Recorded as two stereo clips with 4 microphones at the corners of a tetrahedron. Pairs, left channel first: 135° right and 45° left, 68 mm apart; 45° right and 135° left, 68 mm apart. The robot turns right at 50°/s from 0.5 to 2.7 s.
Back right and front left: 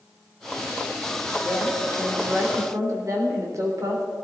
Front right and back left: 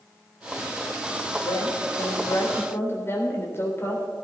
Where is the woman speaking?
55° right, 3.5 m; by 4.0 s 5° left, 3.5 m.